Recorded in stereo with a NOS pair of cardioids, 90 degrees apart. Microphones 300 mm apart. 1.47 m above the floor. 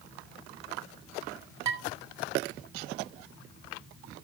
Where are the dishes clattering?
65° right, 6.5 m.